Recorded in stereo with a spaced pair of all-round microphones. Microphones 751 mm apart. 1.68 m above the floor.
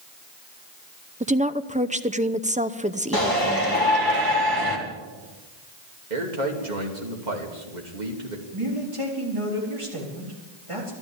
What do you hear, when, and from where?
1.2 s a woman speaking: 10° right (ahead or behind), 0.6 m
3.1 s a shout: 30° right (ahead or behind), 3.5 m
6.1 s a man speaking: 85° right, 2.5 m
8.5 s a man speaking: 45° right (ahead or behind), 4 m